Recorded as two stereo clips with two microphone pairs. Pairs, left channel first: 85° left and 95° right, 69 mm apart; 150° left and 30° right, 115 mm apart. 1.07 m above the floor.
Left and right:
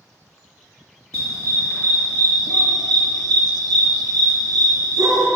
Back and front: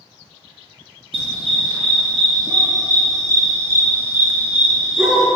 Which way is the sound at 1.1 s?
65° right.